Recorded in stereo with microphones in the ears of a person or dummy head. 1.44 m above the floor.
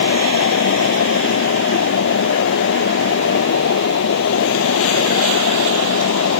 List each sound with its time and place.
0.0 s a fan: 65° left (ahead or behind)